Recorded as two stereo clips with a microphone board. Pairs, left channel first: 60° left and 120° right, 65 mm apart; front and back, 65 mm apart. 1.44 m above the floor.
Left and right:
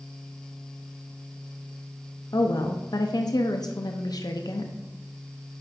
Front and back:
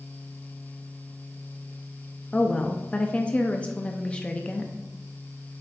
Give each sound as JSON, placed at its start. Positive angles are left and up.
{"t": 2.3, "sound": "a woman speaking", "azimuth_deg": 75, "distance_m": 0.6}